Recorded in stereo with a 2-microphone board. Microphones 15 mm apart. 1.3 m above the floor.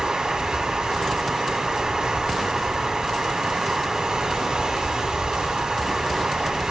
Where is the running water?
45° right (ahead or behind), 2.0 m.